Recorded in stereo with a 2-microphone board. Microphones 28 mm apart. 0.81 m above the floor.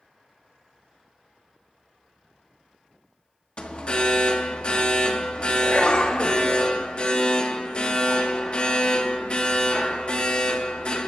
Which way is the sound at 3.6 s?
40° left (ahead or behind).